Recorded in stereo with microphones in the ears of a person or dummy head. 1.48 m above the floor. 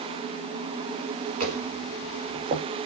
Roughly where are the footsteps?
Right.